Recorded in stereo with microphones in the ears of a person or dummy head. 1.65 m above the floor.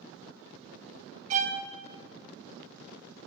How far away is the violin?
About 0.9 m.